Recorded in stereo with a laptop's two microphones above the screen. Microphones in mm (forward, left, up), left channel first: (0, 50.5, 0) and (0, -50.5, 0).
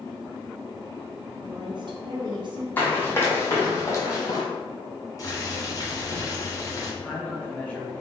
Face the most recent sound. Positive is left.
turn(degrees=15)  # may be behind; listen again after turning